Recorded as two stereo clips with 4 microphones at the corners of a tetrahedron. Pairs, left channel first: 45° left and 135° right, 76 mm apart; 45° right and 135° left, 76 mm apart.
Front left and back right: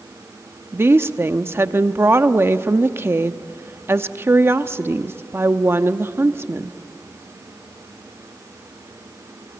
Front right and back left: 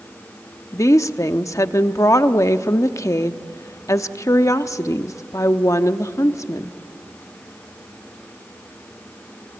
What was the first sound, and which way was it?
A woman speaking, 80° right.